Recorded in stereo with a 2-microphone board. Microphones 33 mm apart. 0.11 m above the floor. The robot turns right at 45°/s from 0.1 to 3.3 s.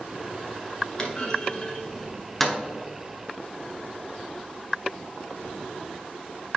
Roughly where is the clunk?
Left.